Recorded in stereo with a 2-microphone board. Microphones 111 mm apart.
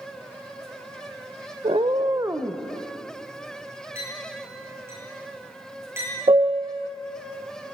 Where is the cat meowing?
65° right (ahead or behind), 0.7 m; by 2.6 s 10° right (ahead or behind), 1.0 m.